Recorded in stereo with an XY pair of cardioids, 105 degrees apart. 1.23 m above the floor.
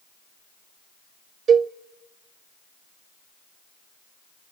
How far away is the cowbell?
About 0.5 m.